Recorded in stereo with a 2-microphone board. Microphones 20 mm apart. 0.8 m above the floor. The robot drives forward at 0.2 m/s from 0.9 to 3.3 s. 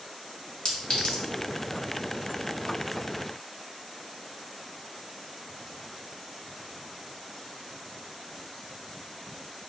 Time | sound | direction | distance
0.7 | a clink | 55° left (ahead or behind) | 0.8 m